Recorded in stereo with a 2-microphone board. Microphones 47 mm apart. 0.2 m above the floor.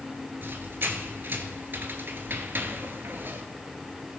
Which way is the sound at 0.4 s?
45° right (ahead or behind).